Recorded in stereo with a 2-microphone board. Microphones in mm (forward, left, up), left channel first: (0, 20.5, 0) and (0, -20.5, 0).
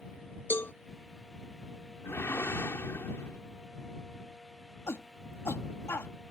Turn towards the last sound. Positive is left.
turn(degrees=75)  # may be behind; listen again after turning